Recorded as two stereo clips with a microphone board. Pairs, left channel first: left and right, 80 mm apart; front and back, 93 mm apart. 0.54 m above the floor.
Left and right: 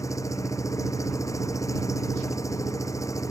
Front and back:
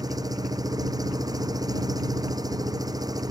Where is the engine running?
135° left.